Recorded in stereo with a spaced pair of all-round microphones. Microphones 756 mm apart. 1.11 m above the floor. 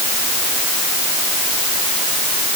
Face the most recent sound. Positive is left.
No sound to turn to.